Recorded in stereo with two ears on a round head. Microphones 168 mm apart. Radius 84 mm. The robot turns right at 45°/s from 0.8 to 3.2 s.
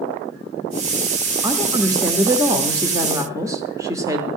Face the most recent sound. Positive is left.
turn(degrees=-15)  # may be behind; listen again after turning